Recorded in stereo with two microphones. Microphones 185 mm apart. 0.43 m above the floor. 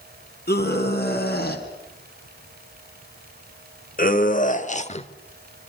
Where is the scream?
60° left (ahead or behind), 4 m; by 5.1 s 35° left (ahead or behind), 1.1 m.